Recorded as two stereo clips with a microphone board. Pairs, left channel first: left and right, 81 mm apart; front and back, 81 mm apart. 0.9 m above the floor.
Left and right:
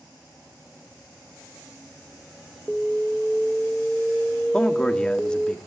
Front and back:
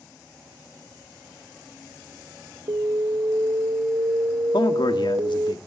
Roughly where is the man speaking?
Ahead.